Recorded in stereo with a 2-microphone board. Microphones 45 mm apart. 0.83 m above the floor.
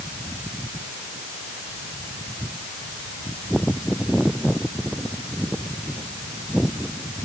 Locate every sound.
Only background noise.